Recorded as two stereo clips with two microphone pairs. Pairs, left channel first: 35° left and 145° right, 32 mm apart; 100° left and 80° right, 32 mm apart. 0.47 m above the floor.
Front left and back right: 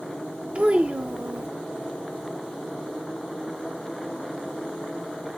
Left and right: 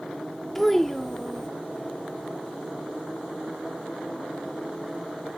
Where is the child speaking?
Straight behind, 0.5 m.